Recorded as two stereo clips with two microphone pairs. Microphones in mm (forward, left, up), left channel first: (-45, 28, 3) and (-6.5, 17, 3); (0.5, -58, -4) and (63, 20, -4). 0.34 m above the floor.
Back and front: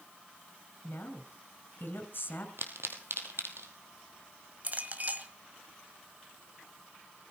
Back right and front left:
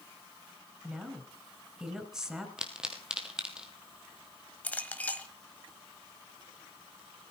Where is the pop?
30° right, 2 m.